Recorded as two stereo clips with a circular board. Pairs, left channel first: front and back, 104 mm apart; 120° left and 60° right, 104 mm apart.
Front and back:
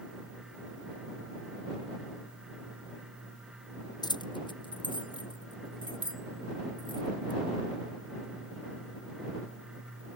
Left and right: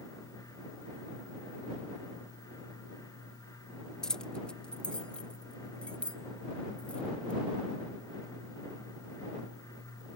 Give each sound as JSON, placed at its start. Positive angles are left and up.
{"t": 4.0, "sound": "keys jangling", "azimuth_deg": 35}